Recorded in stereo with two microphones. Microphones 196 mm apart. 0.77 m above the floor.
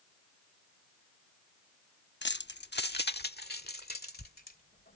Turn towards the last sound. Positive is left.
turn(degrees=50)  # may be behind; listen again after turning